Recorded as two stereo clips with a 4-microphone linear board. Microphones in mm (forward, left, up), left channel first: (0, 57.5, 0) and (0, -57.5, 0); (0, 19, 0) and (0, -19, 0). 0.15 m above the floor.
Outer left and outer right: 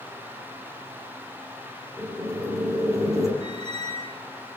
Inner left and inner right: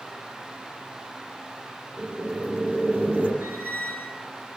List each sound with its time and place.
2.0 s boiling: 30° right (ahead or behind), 5.5 m
3.4 s a squeak: 65° right (ahead or behind), 9 m